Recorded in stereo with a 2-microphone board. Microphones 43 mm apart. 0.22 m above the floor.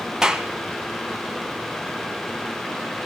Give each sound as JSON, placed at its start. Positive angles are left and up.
{"t": 0.2, "sound": "a clap", "side_deg": -10, "distance_m": 1.6}